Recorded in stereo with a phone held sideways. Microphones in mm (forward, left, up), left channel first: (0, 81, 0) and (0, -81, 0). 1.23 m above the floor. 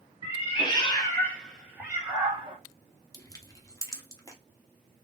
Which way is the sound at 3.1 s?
20° left (ahead or behind).